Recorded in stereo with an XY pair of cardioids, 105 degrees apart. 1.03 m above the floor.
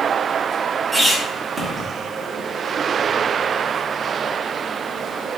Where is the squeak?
25° right, 1.0 m.